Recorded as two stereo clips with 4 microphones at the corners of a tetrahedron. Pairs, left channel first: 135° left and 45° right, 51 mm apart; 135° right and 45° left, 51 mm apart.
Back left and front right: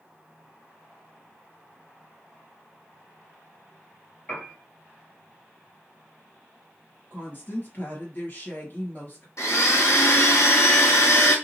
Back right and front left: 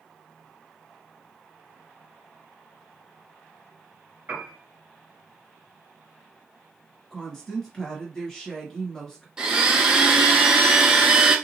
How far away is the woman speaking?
About 1.9 m.